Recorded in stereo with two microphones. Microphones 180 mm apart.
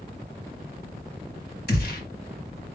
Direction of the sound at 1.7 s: 60° left (ahead or behind).